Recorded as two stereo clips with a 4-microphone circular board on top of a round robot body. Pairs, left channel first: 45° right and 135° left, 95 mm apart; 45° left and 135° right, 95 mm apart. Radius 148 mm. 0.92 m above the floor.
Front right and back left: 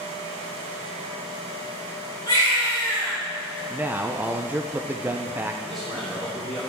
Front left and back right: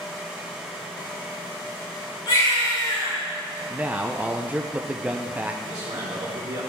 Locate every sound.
2.3 s a baby crying: 10° left, 5 m
3.7 s a man speaking: 175° left, 0.8 m
5.6 s a man speaking: 130° right, 3.5 m